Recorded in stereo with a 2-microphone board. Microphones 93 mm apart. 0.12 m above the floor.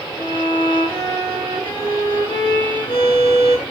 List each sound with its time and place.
0.2 s a violin: 60° left (ahead or behind), 3.5 m